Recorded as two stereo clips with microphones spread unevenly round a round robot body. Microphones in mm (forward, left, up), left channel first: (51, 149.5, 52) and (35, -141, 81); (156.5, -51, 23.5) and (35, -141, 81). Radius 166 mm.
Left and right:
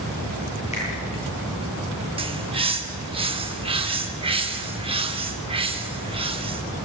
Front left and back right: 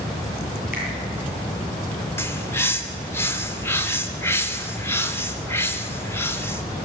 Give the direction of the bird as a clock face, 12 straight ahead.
1 o'clock.